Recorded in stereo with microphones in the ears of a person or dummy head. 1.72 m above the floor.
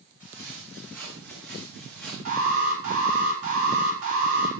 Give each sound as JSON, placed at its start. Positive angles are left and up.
{"t": 0.2, "sound": "footsteps", "side_deg": -10, "distance_m": 6.5}
{"t": 2.2, "sound": "an alarm", "side_deg": -45, "distance_m": 4.5}